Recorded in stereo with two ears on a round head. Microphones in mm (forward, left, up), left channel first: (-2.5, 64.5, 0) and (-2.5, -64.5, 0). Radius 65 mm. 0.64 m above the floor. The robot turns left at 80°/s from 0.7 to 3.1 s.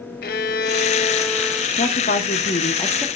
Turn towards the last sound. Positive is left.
turn(degrees=10)